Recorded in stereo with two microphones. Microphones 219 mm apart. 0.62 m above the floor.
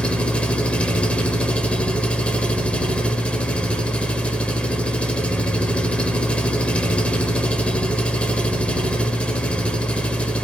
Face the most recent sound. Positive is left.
turn(degrees=5)  # may be behind; listen again after turning